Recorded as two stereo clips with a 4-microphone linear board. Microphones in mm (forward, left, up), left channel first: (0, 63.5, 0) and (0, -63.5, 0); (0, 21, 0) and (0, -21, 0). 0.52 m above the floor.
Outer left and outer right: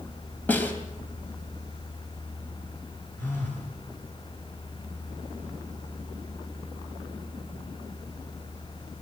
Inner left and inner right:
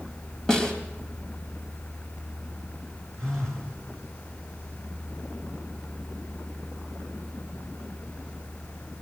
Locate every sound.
0.5 s a snare drum: 15° left (ahead or behind), 3 m
3.2 s a phone buzzing: 15° left (ahead or behind), 7 m